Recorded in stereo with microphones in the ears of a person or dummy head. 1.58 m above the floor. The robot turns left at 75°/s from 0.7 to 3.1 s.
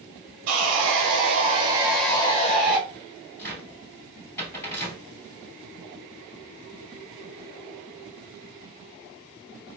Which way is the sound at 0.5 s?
85° right.